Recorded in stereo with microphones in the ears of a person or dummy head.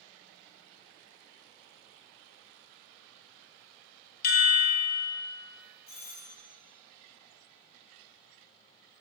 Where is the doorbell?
80° left, 3 m.